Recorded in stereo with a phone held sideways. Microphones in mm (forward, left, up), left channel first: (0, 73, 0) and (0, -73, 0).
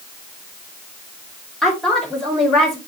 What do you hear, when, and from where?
1.6 s a woman speaking: centre (ahead or behind), 4 m